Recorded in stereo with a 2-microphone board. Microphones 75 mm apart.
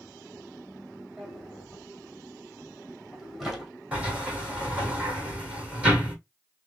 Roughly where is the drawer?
Centre.